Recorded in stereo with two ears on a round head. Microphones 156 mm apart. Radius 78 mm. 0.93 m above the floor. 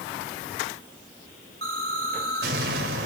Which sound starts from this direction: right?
An explosion, at 1.6 s.